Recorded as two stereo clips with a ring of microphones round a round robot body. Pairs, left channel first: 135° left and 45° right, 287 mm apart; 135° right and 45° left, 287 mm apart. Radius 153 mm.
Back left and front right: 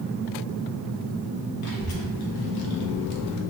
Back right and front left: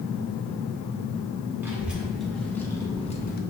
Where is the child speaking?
130° left, 1.5 m; by 3.4 s 165° left, 0.6 m.